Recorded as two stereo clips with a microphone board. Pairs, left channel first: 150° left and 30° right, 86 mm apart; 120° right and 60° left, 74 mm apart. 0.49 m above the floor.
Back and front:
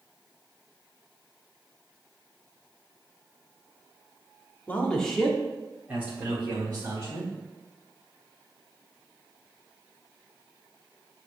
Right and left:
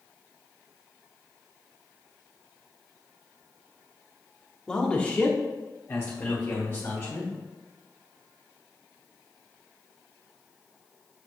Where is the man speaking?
175° left, 1.1 m; by 7.3 s 75° right, 2 m.